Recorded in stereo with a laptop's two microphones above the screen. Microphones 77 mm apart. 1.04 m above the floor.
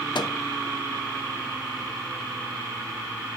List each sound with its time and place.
0.1 s a microwave: 70° left (ahead or behind), 0.8 m